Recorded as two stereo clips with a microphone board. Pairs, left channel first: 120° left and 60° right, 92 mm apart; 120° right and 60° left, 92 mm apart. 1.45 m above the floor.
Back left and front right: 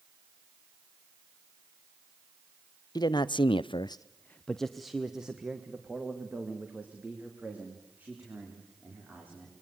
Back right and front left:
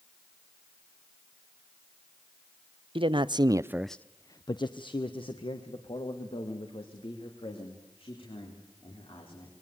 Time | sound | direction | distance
3.0 | a man speaking | 80° left | 0.9 m